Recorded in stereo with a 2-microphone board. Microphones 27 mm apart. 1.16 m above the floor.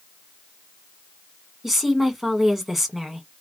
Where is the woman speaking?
10° right (ahead or behind), 1.4 m.